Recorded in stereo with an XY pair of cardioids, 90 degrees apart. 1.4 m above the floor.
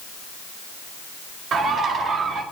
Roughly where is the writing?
No writing in this recording.